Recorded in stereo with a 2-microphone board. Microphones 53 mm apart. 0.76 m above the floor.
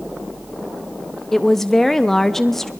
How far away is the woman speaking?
About 0.8 m.